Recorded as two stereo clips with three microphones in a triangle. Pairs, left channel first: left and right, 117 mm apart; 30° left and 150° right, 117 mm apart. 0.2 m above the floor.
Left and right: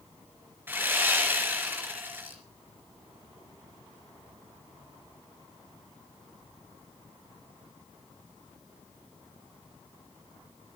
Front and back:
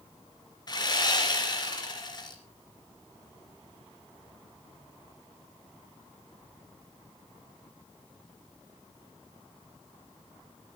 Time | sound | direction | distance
0.7 | sawing | 20° right | 3 m